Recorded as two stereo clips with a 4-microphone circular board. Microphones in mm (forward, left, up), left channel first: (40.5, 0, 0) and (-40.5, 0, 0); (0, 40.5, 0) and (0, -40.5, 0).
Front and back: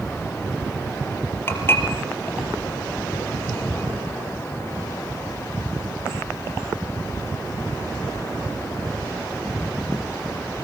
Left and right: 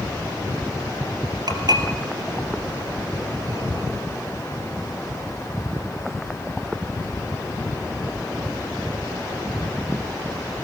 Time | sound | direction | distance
1.5 | dishes clattering | 60° right | 3 m